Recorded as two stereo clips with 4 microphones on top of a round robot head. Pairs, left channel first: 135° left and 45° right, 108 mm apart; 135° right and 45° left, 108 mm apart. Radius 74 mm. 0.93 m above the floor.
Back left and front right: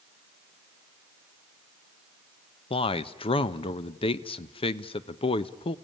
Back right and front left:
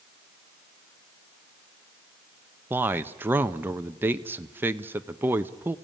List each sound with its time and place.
2.7 s a man speaking: 115° left, 0.7 m